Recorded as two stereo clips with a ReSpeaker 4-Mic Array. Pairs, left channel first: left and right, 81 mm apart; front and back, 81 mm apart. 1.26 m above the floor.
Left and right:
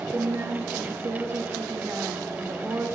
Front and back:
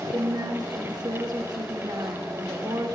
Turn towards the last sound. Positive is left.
turn(degrees=-145)